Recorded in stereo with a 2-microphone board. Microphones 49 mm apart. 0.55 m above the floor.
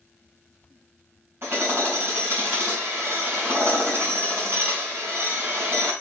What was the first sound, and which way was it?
Hammering, 55° right (ahead or behind).